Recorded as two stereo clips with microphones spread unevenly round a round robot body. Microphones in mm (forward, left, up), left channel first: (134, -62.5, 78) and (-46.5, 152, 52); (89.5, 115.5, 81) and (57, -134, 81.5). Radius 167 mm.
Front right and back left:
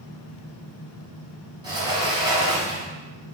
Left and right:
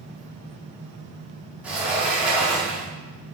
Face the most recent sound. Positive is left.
turn(degrees=180)